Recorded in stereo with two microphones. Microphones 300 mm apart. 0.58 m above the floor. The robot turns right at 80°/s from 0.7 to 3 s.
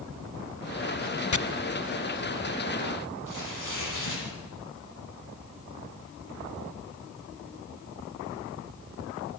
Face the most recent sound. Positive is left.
turn(degrees=80)